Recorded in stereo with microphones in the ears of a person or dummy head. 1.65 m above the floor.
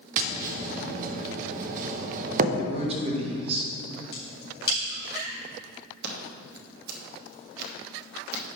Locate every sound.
0.2 s tapping: 50° right (ahead or behind), 0.6 m
2.6 s a man speaking: 30° right (ahead or behind), 1.6 m
4.1 s a crack: 60° left (ahead or behind), 3 m
6.0 s scissors: 60° right (ahead or behind), 1.3 m